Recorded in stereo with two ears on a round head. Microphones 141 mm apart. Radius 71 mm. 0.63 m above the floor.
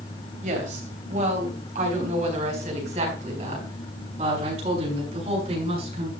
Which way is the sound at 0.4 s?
55° right (ahead or behind).